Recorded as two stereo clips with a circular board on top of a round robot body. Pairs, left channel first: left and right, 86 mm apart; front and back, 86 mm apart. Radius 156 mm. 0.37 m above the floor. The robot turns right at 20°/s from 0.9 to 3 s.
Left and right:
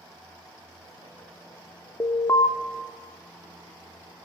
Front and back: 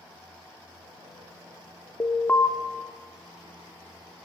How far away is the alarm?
About 1.5 m.